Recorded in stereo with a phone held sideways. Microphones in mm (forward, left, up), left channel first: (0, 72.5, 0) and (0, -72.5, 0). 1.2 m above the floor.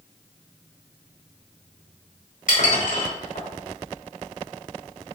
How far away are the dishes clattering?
About 5 m.